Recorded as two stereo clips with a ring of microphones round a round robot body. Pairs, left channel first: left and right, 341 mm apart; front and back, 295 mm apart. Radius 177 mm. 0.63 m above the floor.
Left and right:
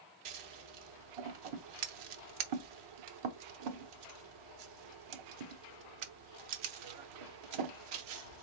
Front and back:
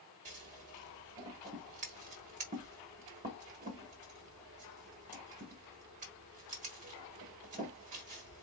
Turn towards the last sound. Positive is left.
turn(degrees=-110)